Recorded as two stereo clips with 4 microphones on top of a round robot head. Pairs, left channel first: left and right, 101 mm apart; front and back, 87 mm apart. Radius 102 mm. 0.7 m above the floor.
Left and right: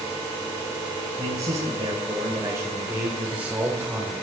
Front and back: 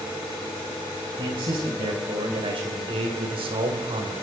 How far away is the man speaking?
About 3.5 m.